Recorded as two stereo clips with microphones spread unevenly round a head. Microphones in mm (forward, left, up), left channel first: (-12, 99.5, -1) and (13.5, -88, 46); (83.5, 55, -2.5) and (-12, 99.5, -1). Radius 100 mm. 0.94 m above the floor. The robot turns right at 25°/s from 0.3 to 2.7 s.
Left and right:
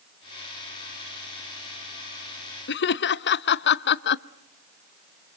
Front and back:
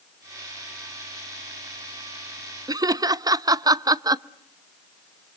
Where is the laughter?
100° left, 0.8 m.